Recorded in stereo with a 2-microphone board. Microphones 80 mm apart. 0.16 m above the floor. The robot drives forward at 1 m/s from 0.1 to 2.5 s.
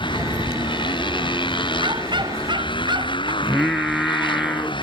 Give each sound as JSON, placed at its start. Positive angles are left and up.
{"t": 0.0, "sound": "a motorcycle", "side_deg": 80}
{"t": 1.8, "sound": "a dog barking", "side_deg": -70}
{"t": 3.4, "sound": "singing", "side_deg": 0}